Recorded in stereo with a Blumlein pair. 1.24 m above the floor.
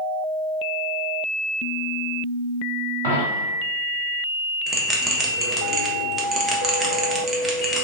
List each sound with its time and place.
3.0 s a dropped coin: 55° right, 1.7 m
4.7 s a bell: 10° right, 0.7 m